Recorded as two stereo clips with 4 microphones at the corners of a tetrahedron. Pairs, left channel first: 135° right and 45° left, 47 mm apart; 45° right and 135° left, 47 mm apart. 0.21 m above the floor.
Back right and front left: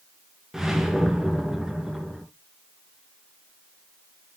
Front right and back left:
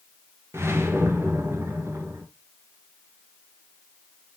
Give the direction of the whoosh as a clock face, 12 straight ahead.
8 o'clock.